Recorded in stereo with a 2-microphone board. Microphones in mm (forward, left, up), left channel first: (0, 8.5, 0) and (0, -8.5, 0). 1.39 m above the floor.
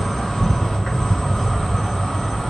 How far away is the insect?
About 0.8 m.